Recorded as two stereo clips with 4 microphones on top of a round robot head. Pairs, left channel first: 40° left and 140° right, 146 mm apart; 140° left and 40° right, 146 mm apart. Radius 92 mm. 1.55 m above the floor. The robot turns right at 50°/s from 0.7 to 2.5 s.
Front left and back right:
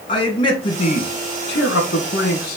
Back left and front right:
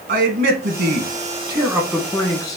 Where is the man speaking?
20° right, 1.3 m; by 2.6 s 70° left, 1.3 m.